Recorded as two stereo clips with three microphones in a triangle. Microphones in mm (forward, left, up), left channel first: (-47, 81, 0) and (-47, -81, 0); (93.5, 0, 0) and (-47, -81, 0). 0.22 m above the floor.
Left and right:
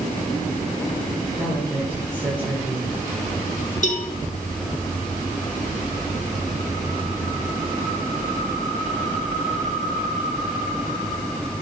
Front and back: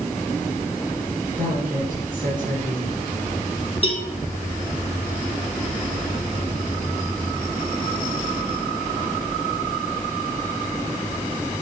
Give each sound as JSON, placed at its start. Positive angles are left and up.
{"t": 1.3, "sound": "a woman speaking", "azimuth_deg": -165, "distance_m": 3.0}
{"t": 3.8, "sound": "a cowbell", "azimuth_deg": 70, "distance_m": 1.2}